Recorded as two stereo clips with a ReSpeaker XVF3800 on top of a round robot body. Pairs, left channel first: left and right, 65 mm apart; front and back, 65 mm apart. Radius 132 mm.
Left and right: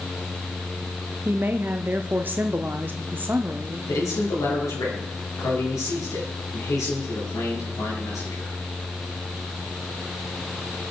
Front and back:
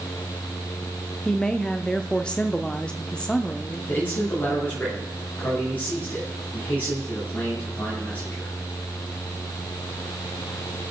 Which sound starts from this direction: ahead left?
A man speaking, at 3.9 s.